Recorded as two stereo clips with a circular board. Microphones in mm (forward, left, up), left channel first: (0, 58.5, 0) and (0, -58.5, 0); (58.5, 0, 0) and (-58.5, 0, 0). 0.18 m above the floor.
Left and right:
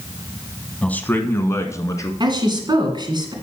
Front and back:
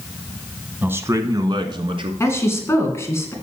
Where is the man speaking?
145° left, 1.0 m; by 2.1 s 150° left, 1.9 m.